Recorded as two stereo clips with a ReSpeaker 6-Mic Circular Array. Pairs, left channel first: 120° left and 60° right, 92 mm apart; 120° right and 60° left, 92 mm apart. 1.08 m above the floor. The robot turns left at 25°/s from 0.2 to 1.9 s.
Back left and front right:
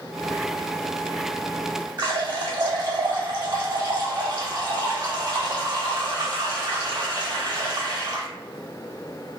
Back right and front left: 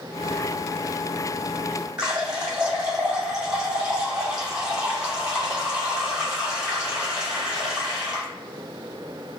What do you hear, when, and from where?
2.0 s a running tap: 20° right, 1.5 m